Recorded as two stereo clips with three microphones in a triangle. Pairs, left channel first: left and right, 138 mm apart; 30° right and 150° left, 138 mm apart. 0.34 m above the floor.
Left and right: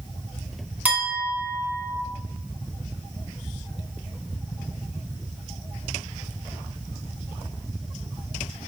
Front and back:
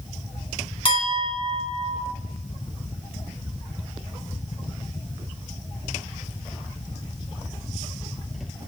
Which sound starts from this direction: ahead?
A clink, at 0.8 s.